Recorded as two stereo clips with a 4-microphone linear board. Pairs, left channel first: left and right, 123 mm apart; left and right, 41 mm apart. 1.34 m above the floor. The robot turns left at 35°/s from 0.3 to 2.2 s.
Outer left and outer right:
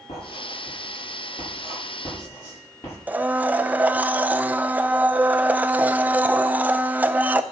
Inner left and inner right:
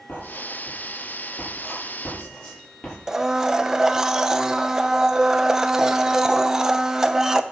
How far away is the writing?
About 7.5 m.